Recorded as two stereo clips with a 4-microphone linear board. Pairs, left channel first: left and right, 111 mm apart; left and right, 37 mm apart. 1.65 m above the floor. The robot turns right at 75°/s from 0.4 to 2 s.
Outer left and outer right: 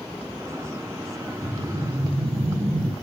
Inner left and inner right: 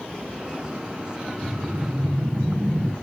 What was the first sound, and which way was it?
A whoosh, 170° left.